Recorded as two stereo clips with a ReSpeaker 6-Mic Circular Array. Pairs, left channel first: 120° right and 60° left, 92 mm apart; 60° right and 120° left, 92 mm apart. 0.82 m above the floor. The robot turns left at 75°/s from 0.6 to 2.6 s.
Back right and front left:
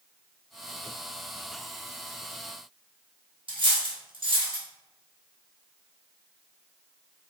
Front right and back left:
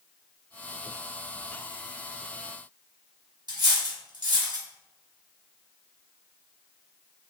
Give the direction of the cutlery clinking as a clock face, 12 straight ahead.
9 o'clock.